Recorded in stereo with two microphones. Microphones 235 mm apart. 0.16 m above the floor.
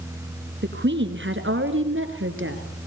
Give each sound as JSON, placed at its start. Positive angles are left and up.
{"t": 0.6, "sound": "a woman speaking", "side_deg": -50, "distance_m": 2.0}